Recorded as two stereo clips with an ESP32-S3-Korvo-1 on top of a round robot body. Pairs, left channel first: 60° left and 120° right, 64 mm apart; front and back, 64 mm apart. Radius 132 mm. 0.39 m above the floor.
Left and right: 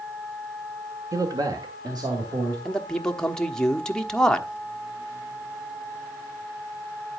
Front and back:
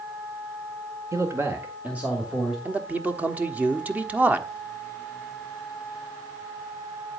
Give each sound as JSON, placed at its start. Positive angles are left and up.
{"t": 1.1, "sound": "a man speaking", "azimuth_deg": -145, "distance_m": 1.5}
{"t": 2.6, "sound": "a man speaking", "azimuth_deg": 130, "distance_m": 1.3}